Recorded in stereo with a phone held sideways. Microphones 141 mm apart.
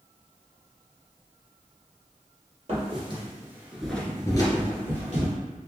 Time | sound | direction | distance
2.7 | footsteps | 45° right (ahead or behind) | 1.5 m